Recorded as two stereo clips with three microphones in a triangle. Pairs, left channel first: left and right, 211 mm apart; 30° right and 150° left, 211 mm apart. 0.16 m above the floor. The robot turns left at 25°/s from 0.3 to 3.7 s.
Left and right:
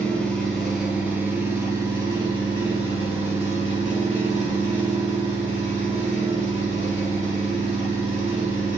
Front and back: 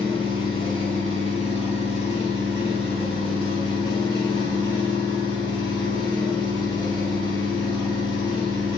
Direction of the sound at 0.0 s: 5° left.